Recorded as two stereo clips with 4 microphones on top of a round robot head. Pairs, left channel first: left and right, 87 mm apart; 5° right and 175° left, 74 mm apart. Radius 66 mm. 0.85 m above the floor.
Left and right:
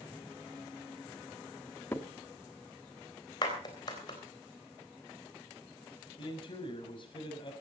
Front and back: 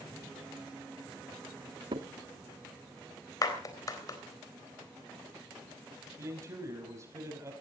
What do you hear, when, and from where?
1.9 s a crack: 155° left, 1.4 m
3.4 s a clap: 35° left, 3.5 m
6.2 s a man speaking: 125° left, 5 m